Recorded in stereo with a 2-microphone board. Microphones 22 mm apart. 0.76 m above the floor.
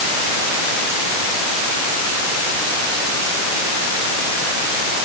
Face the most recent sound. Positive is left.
No sound to turn to.